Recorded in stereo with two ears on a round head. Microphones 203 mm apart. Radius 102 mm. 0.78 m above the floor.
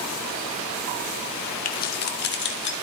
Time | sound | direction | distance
1.6 | keys jangling | 35° left (ahead or behind) | 1.0 m